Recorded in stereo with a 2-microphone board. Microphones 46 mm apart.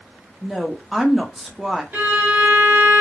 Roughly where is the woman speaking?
Centre.